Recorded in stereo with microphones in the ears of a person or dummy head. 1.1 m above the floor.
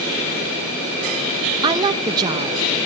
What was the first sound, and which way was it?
A woman speaking, 25° right (ahead or behind).